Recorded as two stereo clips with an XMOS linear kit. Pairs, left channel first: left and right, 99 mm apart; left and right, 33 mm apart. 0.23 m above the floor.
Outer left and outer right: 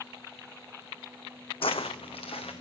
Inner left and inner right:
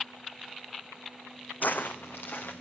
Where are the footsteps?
70° left (ahead or behind), 0.7 m; by 2.6 s 85° left, 2 m.